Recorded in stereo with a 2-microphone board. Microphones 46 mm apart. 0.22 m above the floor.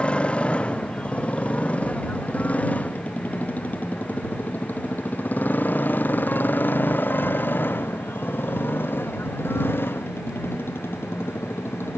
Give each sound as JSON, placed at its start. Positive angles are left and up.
{"t": 0.0, "sound": "a motorcycle", "side_deg": 25}